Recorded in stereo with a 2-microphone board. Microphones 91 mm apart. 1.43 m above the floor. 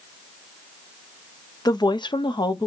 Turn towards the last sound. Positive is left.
turn(degrees=50)  # may be behind; listen again after turning